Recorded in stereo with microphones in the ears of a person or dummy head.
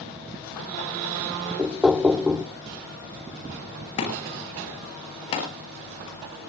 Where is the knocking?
5° right (ahead or behind), 0.5 m.